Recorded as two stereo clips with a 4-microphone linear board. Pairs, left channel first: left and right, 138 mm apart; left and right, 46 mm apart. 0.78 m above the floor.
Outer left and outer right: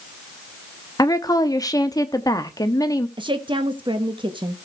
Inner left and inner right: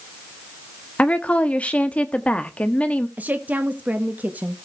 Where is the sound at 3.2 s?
35° right (ahead or behind), 1.2 m.